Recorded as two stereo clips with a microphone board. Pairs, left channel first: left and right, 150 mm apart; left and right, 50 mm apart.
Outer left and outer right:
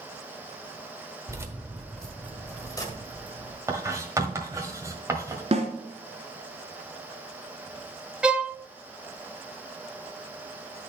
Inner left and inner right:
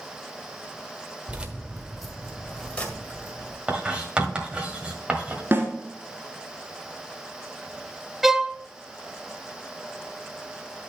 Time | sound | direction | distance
1.3 | keys jangling | 25° right (ahead or behind) | 1.2 m
3.7 | writing | 20° right (ahead or behind) | 1.5 m
5.5 | a snare drum | 45° right (ahead or behind) | 1.8 m
8.2 | a violin | 5° right (ahead or behind) | 0.6 m